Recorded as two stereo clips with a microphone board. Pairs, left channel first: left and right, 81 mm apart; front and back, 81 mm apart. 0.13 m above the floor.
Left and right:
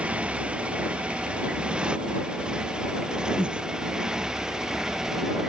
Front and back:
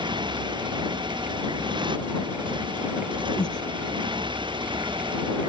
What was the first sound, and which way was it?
A motorcycle, 165° right.